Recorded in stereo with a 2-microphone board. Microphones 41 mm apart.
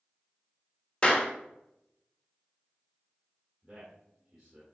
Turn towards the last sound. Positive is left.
turn(degrees=-15)  # may be behind; listen again after turning